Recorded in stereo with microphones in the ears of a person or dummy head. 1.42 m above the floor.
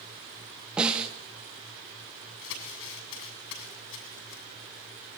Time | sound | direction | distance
0.8 | a snare drum | 5° right (ahead or behind) | 2.5 m
2.4 | crumpling | 75° left (ahead or behind) | 7 m